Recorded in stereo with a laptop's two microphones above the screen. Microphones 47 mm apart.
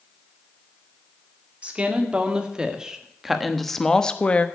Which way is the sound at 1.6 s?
30° right (ahead or behind).